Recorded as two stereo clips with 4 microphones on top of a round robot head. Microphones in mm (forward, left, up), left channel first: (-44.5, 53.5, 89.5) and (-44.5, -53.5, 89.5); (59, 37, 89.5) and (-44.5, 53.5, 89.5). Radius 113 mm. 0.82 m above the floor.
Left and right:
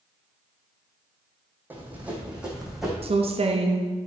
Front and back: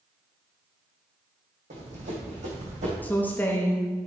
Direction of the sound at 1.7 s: 160° right.